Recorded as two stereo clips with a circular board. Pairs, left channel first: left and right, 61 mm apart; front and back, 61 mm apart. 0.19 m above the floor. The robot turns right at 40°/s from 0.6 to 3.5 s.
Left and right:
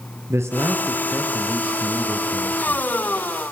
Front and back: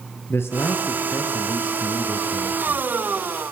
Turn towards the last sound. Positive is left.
turn(degrees=70)